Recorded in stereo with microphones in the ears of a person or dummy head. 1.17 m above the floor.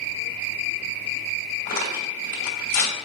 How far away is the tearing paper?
About 2.5 m.